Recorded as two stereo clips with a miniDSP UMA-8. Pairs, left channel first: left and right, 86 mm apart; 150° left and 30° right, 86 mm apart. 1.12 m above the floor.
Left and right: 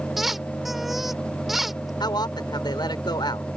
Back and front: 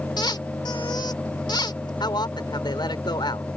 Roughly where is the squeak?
Behind.